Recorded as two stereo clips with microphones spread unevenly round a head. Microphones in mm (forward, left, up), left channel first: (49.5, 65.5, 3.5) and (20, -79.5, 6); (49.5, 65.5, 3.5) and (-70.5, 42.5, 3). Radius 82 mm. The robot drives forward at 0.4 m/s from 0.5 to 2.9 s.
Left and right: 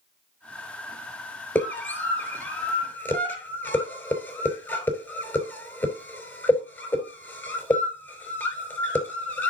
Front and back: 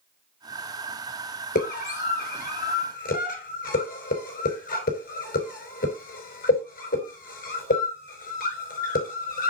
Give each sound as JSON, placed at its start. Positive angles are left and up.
{"t": 1.6, "sound": "a scream", "azimuth_deg": 5, "distance_m": 5.5}